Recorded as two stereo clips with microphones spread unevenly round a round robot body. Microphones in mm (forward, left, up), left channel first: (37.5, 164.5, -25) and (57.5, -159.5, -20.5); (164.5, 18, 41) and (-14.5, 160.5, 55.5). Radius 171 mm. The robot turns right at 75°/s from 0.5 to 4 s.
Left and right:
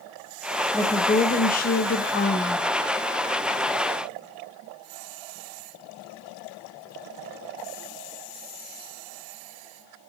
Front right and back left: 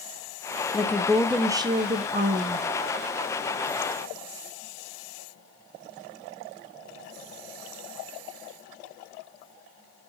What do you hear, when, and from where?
0.7 s a woman speaking: 15° left, 0.9 m; by 2.7 s 160° left, 0.9 m